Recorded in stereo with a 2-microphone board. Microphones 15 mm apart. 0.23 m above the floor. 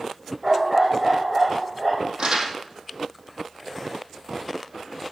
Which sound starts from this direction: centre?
A dog barking, at 0.4 s.